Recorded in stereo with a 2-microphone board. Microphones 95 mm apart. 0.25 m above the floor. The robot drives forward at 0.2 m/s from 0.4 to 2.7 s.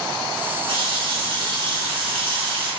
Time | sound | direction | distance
0.7 | a running tap | 65° right (ahead or behind) | 1.8 m